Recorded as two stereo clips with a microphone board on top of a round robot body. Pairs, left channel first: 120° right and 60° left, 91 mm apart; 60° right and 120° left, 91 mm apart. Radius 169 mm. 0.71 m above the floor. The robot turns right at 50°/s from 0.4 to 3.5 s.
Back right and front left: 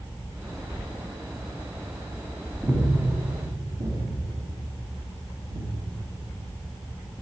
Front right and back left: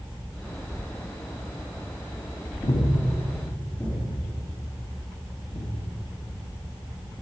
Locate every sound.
2.6 s breathing: 25° right, 2 m; by 5.8 s 20° left, 2 m